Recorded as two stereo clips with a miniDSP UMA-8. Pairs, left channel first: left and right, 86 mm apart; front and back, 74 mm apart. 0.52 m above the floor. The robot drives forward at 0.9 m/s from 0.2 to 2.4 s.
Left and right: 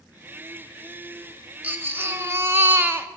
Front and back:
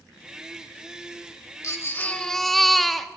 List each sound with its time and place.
1.6 s a baby crying: 30° right, 1.1 m; by 3.1 s 85° right, 0.9 m